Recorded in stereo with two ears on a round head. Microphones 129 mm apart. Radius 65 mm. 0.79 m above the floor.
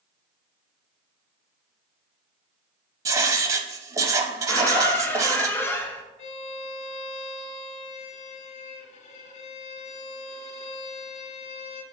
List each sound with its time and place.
3.0 s writing: 25° right (ahead or behind), 0.6 m
4.5 s a squeak: 15° left (ahead or behind), 0.6 m
6.2 s a violin: 50° left (ahead or behind), 0.8 m